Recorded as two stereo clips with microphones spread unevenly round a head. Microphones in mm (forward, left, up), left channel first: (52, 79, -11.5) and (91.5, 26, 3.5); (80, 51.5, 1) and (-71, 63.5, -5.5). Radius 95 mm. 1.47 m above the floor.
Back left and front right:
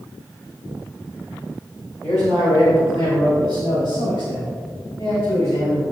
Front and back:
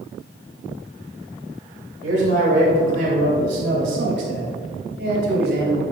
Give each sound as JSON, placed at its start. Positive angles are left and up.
{"t": 2.0, "sound": "a man speaking", "azimuth_deg": -160, "distance_m": 2.5}